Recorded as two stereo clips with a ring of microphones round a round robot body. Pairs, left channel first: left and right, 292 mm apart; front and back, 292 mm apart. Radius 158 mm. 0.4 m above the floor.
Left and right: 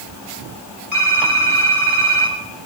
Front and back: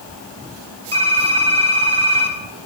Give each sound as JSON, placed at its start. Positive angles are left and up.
{"t": 0.9, "sound": "typing on a keyboard", "azimuth_deg": -120, "distance_m": 1.2}